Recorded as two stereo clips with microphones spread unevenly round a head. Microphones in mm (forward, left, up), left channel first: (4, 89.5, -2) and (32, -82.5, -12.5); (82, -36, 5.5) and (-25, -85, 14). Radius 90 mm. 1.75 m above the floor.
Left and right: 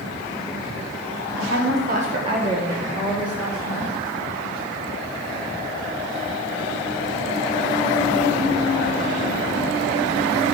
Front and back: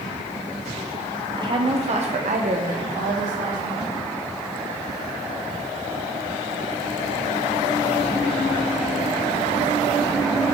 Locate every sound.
1.4 s a woman speaking: 105° right, 1.3 m; by 3.9 s 170° right, 3 m